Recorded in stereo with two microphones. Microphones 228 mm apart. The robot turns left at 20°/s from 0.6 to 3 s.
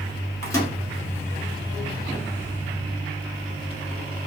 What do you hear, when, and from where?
0.4 s a microwave: 15° left (ahead or behind), 1.2 m; by 0.7 s 10° left (ahead or behind), 1.2 m